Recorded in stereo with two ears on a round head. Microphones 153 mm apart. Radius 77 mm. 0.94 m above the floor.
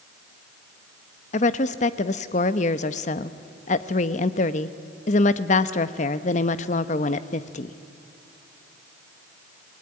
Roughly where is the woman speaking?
Left.